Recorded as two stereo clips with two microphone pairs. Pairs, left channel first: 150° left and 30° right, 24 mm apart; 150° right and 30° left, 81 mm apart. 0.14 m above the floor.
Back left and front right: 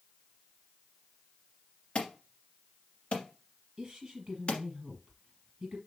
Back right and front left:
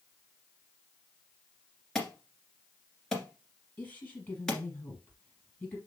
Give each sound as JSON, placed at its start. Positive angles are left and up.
{"t": 1.9, "sound": "an alarm", "azimuth_deg": 125, "distance_m": 1.8}
{"t": 3.8, "sound": "a woman speaking", "azimuth_deg": -85, "distance_m": 3.5}